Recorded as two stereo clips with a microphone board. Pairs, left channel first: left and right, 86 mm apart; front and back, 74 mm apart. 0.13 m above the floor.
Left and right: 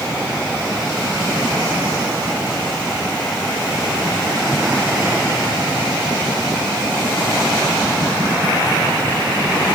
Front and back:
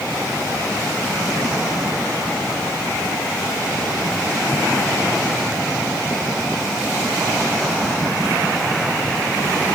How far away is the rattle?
No rattle in this recording.